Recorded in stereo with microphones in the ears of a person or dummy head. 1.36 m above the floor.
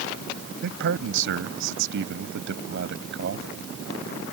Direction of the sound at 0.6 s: 65° right (ahead or behind).